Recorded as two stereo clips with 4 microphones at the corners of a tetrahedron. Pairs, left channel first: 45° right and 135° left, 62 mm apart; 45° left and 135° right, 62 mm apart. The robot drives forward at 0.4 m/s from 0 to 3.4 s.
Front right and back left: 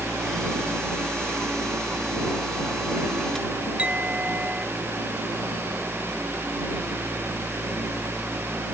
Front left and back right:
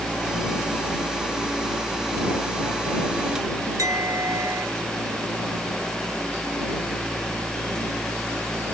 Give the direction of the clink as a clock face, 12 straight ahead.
5 o'clock.